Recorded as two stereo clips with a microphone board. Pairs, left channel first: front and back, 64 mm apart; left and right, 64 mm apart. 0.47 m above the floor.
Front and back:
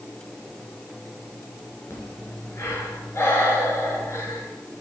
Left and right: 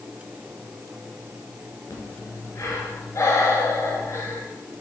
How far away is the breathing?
About 4 m.